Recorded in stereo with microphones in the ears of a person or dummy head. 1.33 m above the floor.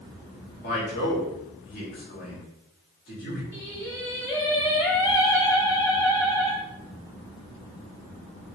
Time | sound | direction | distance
0.6 | a man speaking | 45° left (ahead or behind) | 2 m
3.5 | singing | 10° left (ahead or behind) | 1.5 m